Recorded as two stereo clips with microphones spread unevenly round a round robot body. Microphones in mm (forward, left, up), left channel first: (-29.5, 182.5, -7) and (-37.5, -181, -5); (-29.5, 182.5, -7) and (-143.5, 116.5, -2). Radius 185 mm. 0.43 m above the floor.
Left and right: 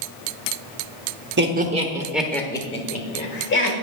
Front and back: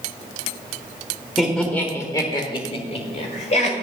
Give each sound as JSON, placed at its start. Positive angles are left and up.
{"t": 1.4, "sound": "laughter", "azimuth_deg": -60, "distance_m": 1.0}